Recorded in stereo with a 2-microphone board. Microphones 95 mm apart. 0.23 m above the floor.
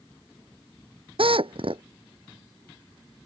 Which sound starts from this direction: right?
A drill, at 1.2 s.